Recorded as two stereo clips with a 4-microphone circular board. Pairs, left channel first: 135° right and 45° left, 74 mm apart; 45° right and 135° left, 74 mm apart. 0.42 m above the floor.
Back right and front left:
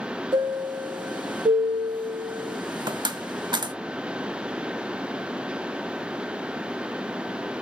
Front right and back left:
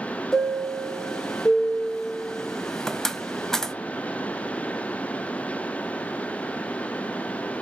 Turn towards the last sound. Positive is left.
turn(degrees=40)